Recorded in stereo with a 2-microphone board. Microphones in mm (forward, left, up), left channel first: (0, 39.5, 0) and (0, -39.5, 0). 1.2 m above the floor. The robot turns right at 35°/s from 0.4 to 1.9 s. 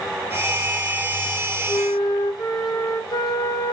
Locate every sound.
1.7 s a flute: 60° left (ahead or behind), 1.2 m; by 3.7 s 55° left (ahead or behind), 1.2 m